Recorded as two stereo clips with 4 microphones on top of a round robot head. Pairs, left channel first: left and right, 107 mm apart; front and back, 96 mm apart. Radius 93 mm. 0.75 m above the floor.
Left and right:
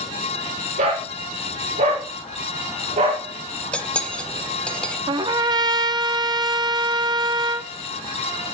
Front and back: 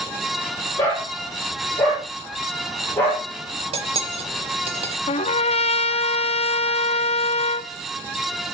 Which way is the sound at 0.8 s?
70° right.